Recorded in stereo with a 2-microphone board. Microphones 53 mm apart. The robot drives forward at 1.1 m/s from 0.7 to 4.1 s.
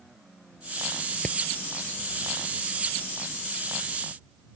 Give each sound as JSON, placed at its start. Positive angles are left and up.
{"t": 1.2, "sound": "hammering", "side_deg": 25}